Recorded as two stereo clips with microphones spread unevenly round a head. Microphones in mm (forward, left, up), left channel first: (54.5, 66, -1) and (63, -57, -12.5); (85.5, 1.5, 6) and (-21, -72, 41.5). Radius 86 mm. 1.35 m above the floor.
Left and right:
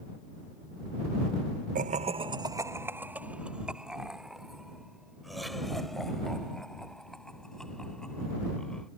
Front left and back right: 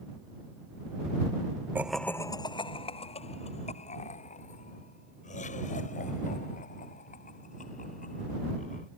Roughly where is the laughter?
Right.